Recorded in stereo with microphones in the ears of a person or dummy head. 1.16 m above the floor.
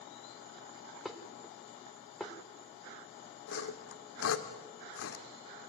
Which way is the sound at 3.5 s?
75° left (ahead or behind).